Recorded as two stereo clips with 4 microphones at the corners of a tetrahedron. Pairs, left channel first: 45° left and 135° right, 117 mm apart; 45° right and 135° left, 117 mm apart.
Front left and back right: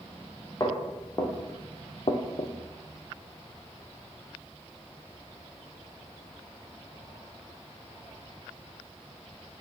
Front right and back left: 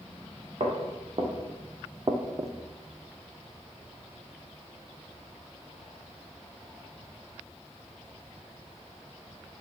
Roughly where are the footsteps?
Left.